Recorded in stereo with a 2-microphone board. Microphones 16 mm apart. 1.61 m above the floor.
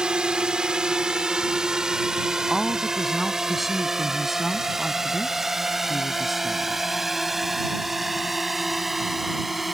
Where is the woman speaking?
Centre (ahead or behind).